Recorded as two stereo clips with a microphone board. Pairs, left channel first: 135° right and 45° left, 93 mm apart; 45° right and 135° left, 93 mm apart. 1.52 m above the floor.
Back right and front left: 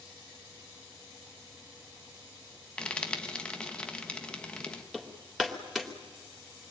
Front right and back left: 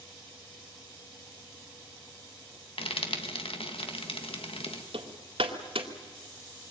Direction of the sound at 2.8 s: 55° right.